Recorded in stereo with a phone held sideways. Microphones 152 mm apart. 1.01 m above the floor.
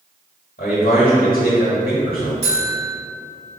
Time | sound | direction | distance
0.6 | a man speaking | 75° left (ahead or behind) | 1.5 m
2.4 | a buzzer | 40° right (ahead or behind) | 1.9 m